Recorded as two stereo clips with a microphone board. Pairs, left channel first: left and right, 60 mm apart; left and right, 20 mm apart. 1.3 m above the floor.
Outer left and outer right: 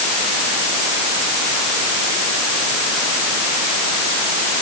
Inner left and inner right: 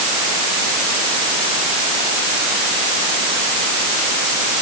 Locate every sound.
Only background noise.